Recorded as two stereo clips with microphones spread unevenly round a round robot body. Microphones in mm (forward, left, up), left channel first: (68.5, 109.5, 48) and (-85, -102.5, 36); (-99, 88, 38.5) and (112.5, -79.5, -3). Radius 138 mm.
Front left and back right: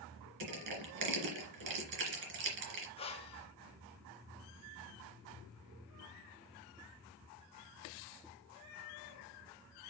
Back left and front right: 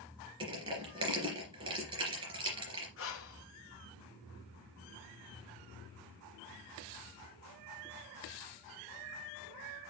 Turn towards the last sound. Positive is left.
turn(degrees=115)